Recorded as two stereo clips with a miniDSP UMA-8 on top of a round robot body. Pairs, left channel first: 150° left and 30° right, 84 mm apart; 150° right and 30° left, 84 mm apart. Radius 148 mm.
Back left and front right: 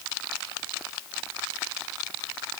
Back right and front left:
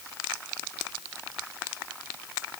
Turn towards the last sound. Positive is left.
No sound to turn to.